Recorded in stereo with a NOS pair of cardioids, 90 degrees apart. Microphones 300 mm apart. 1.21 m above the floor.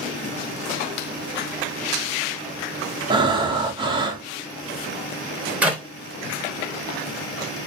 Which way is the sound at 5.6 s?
5° right.